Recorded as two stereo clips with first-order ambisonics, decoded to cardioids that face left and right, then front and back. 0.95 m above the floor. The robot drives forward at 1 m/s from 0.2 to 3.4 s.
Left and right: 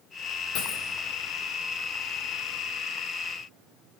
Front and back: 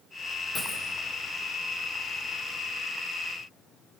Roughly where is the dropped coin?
Left.